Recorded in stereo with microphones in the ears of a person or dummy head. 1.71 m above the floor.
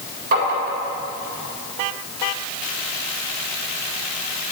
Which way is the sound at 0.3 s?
55° right (ahead or behind).